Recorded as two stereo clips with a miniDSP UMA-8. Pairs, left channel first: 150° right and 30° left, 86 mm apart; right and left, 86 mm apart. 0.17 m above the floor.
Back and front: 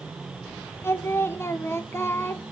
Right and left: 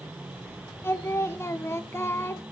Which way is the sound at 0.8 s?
120° right.